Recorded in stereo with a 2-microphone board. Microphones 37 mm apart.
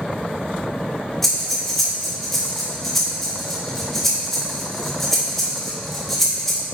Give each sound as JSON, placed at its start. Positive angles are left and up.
{"t": 1.2, "sound": "breathing", "side_deg": 5, "distance_m": 2.0}